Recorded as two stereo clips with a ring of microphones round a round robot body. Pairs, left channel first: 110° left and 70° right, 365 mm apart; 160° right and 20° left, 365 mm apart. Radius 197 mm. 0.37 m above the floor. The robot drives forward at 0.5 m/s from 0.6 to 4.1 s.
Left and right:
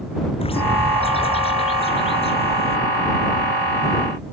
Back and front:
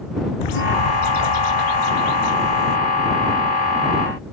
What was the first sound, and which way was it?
A bird, 170° right.